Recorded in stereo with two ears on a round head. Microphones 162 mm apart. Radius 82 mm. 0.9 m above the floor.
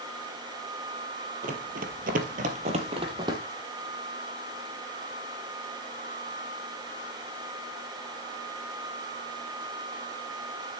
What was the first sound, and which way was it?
Running footsteps, 45° right (ahead or behind).